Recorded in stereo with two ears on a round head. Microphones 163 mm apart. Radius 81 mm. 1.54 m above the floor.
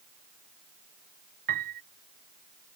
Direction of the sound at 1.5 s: 50° right (ahead or behind).